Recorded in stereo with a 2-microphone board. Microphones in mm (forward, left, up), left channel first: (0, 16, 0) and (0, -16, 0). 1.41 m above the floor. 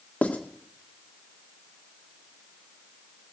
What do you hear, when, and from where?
0.2 s writing: 60° left (ahead or behind), 1.8 m